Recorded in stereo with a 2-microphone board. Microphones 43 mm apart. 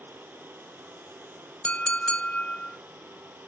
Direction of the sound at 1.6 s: 30° left (ahead or behind).